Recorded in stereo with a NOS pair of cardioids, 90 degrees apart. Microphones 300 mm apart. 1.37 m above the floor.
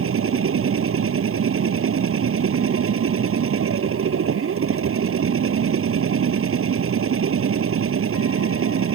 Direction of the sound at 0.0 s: 45° right.